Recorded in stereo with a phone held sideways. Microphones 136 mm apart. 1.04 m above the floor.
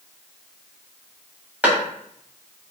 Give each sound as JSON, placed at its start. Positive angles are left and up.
{"t": 1.6, "sound": "a clap", "side_deg": -10, "distance_m": 1.1}